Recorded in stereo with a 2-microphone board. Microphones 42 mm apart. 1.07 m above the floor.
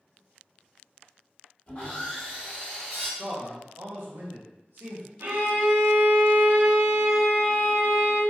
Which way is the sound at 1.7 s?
30° left (ahead or behind).